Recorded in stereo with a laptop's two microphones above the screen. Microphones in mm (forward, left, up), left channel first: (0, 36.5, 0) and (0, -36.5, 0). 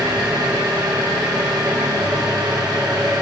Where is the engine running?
75° right (ahead or behind), 2.5 m.